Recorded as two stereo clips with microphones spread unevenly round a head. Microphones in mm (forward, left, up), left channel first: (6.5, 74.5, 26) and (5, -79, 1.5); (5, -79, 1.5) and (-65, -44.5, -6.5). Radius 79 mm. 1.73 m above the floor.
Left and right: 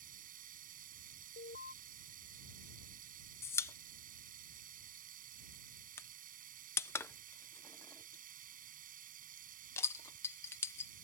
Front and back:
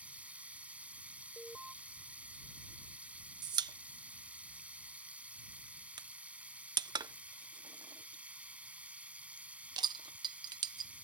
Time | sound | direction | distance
0.0 | running water | 130° right | ?
1.4 | an alarm | 65° left | ?
3.4 | a pop | 150° left | ?